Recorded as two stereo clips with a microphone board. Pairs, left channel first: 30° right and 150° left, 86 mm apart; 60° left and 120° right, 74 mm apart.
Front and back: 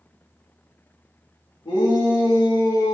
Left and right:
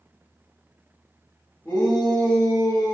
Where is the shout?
10° right, 1.7 m; by 2.9 s 20° left, 1.4 m.